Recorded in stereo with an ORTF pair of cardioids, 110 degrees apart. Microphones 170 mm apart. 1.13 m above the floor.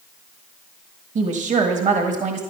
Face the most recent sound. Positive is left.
turn(degrees=-45)